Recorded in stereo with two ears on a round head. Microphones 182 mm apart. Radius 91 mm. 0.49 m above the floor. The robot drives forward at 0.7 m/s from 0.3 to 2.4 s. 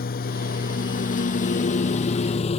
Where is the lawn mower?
45° left (ahead or behind); by 2.6 s 30° left (ahead or behind).